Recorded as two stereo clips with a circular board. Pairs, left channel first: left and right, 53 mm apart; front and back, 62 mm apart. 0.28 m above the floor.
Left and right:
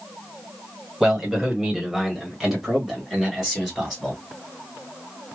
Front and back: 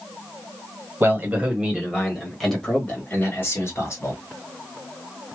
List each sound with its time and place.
1.0 s a man speaking: 165° right, 1.7 m; by 4.2 s straight ahead, 2 m